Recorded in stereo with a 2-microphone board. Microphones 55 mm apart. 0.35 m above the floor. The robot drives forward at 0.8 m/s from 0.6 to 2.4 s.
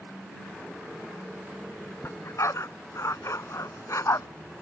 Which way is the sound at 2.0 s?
60° left (ahead or behind).